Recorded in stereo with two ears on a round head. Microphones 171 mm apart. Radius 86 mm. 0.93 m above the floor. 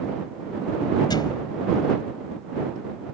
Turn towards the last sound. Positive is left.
turn(degrees=25)  # may be behind; listen again after turning